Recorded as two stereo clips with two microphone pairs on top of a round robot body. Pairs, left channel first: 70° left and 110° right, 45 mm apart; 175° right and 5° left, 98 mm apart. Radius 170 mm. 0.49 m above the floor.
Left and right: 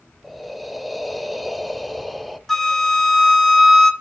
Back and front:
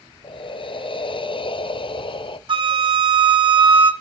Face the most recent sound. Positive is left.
turn(degrees=-10)